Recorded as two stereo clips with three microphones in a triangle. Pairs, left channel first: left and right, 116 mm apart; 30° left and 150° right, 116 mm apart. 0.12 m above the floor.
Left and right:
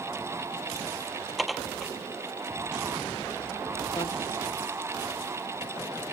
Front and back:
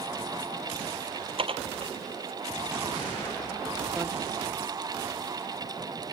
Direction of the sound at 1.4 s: Straight behind.